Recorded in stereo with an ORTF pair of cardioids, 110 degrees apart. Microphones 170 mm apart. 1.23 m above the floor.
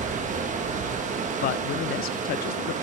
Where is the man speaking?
65° left, 0.5 m.